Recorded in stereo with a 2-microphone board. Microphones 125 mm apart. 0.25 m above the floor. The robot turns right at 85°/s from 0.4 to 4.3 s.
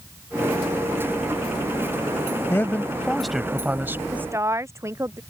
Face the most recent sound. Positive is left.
turn(degrees=-20)  # may be behind; listen again after turning